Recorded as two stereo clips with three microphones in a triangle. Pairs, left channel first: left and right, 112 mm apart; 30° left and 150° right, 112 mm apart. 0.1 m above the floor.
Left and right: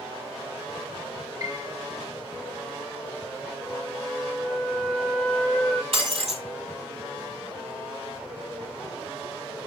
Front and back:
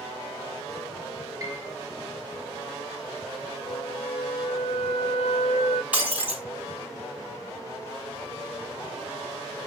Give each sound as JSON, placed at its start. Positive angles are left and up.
{"t": 1.4, "sound": "a piano", "azimuth_deg": -115, "distance_m": 1.6}
{"t": 3.7, "sound": "a flute", "azimuth_deg": 10, "distance_m": 0.8}
{"t": 5.9, "sound": "breaking glass", "azimuth_deg": -70, "distance_m": 1.9}